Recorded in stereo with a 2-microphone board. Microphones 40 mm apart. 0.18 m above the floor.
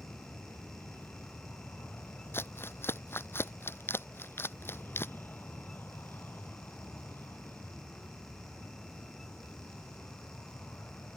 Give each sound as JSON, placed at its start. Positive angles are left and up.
{"t": 0.0, "sound": "an aircraft", "side_deg": 65}
{"t": 2.3, "sound": "crumpling", "side_deg": 75}